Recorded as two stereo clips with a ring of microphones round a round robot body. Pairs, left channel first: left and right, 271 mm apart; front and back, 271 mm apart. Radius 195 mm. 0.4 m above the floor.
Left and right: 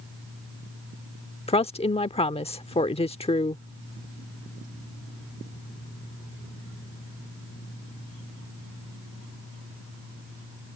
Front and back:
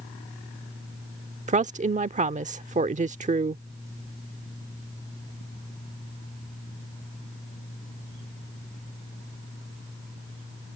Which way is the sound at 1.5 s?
140° left.